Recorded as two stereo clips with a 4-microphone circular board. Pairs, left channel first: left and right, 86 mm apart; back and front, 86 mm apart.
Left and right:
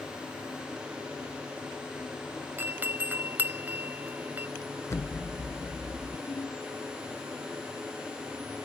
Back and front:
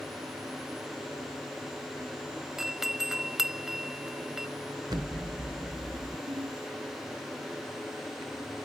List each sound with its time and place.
2.6 s a doorbell: 80° right
4.9 s an explosion: 35° left
6.3 s a ringtone: 35° left